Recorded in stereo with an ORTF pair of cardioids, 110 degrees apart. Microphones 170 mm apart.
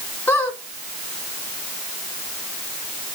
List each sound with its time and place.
0.3 s a squeak: 10° left, 2 m